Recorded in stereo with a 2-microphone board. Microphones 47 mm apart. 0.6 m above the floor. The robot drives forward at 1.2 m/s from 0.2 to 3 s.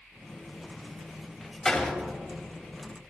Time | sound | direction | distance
1.6 | a door slam | 15° left (ahead or behind) | 2.5 m